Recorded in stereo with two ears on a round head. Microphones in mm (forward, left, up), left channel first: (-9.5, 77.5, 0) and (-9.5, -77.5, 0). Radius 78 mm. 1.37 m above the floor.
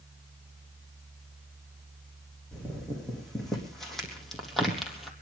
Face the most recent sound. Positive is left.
turn(degrees=0)  # may be behind; listen again after turning